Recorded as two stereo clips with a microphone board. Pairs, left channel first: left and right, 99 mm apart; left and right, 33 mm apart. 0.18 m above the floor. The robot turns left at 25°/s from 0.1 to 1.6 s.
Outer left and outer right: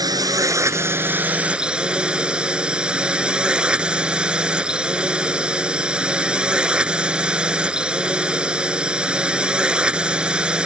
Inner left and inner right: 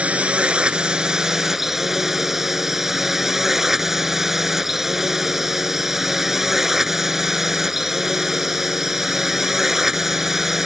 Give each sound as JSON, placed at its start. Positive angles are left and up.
{"t": 0.0, "sound": "a drone", "azimuth_deg": -130}